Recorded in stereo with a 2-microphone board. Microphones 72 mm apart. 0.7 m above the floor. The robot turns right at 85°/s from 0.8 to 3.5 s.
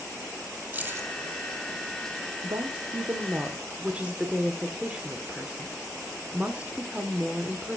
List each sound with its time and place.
0.7 s keys jangling: 20° right (ahead or behind), 2.5 m; by 1.1 s 45° right (ahead or behind), 2.5 m
2.4 s a woman speaking: 110° right, 1.7 m; by 7.8 s 15° right, 1.7 m